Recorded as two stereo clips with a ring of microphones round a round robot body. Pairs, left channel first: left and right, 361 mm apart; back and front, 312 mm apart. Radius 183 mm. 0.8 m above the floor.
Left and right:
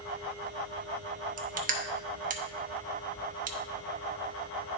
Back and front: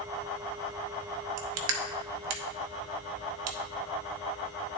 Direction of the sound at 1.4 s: 25° right.